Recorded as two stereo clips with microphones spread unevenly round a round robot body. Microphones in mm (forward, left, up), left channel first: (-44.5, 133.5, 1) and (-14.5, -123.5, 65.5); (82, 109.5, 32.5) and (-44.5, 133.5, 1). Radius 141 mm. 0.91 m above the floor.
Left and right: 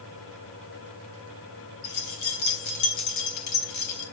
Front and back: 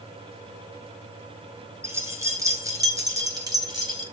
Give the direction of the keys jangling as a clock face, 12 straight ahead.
9 o'clock.